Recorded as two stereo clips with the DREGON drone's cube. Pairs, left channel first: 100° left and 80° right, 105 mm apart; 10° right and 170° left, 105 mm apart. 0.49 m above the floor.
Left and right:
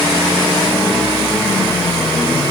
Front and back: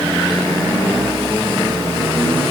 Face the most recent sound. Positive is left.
No sound to turn to.